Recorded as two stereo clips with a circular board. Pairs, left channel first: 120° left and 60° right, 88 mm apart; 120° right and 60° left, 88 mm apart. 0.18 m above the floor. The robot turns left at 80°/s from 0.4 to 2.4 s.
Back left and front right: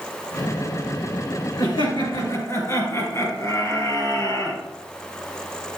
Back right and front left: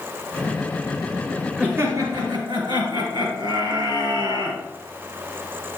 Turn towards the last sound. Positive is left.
turn(degrees=70)